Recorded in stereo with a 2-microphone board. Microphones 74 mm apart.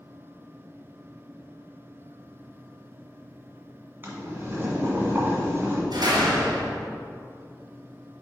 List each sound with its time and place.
4.0 s boiling: 30° right (ahead or behind), 1.8 m
5.9 s a door slam: 70° right (ahead or behind), 2.5 m